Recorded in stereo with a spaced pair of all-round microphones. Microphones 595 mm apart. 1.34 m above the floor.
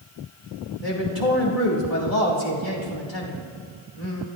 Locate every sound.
0.8 s a man speaking: 80° left, 2.5 m